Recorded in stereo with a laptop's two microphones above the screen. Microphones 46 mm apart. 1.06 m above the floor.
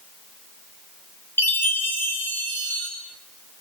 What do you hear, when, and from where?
1.4 s a chime: 50° left (ahead or behind), 10 m